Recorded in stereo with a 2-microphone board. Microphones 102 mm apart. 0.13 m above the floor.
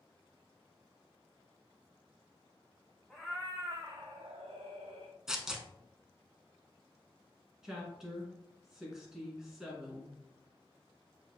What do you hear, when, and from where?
3.1 s a cat meowing: centre (ahead or behind), 0.8 m; by 5.2 s 85° right, 1.2 m
5.3 s tearing paper: 5° right (ahead or behind), 0.6 m
7.6 s a woman speaking: 5° right (ahead or behind), 1.3 m